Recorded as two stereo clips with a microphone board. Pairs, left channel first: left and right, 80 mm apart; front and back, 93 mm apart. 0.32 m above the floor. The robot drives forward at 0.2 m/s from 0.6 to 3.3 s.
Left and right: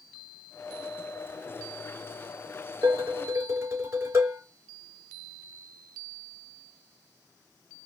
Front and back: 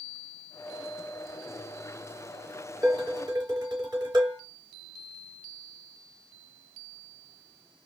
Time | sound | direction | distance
2.8 | dishes clattering | 145° right | 3 m